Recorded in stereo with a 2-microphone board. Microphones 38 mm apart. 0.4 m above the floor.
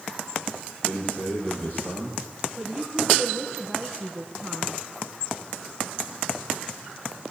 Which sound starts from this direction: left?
A man speaking, at 0.8 s.